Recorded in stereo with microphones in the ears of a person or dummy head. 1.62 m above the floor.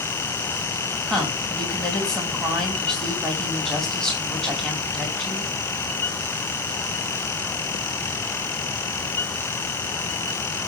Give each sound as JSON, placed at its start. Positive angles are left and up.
{"t": 1.1, "sound": "a woman speaking", "side_deg": 5, "distance_m": 3.0}